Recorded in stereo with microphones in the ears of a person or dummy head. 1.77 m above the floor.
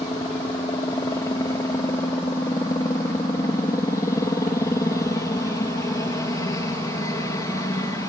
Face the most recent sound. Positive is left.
turn(degrees=15)  # may be behind; listen again after turning